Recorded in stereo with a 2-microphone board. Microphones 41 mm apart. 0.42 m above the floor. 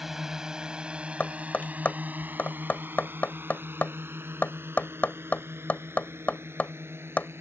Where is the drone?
10° right (ahead or behind); by 7.4 s 80° right.